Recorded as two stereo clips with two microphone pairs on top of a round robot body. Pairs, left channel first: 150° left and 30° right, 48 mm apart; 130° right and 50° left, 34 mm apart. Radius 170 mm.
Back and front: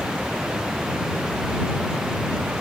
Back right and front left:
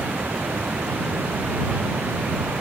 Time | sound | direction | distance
0.0 | running water | 45° left | ?